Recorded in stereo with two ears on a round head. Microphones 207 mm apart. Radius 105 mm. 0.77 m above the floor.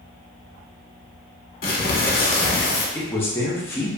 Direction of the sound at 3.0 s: 10° left (ahead or behind).